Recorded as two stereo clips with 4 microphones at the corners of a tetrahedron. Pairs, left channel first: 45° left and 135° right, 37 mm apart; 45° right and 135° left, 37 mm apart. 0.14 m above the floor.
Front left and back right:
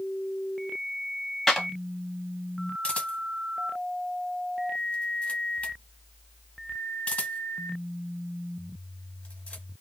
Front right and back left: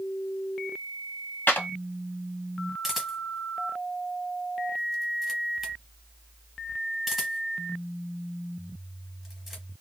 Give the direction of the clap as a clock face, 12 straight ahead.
1 o'clock.